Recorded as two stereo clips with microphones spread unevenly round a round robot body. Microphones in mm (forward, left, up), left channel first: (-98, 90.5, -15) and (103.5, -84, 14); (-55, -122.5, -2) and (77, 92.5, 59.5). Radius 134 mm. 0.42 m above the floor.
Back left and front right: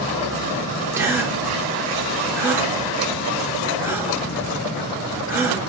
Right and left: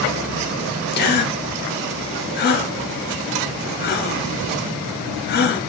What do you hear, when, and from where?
0.9 s a gasp: 125° right, 0.8 m